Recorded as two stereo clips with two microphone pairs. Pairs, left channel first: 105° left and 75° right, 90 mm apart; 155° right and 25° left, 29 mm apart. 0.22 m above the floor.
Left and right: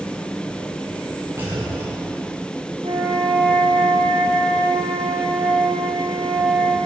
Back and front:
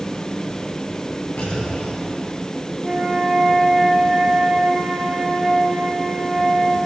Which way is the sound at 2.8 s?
55° right.